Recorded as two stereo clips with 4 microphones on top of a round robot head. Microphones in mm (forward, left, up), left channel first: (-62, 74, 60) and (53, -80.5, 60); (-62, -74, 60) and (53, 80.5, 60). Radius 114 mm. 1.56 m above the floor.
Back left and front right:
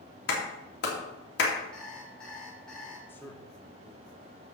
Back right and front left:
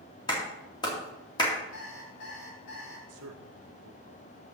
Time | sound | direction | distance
0.3 | a clap | 165° left | 2 m
1.7 | an alarm clock | 145° right | 2.5 m
3.1 | a man speaking | 45° left | 1.2 m